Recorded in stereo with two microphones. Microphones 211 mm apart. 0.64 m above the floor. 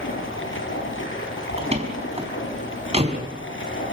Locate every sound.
0.0 s running water: 80° left, 7 m
1.6 s a door slam: 30° right (ahead or behind), 4.5 m